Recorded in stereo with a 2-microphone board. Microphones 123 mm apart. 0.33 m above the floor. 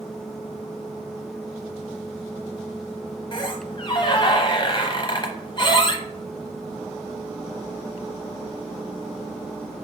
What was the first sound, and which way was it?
A squeak, 40° left (ahead or behind).